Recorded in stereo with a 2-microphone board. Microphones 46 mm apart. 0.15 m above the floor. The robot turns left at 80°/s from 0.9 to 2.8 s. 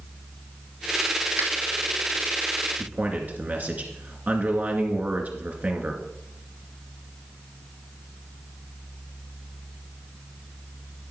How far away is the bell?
No bell in this recording.